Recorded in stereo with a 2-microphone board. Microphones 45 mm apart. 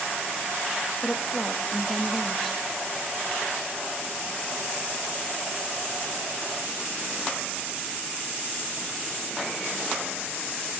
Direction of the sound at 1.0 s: Centre (ahead or behind).